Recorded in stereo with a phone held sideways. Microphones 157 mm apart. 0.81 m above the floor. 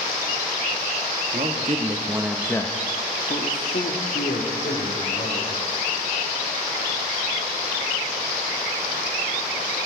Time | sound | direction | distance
1.3 | a man speaking | 55° right (ahead or behind) | 1.6 m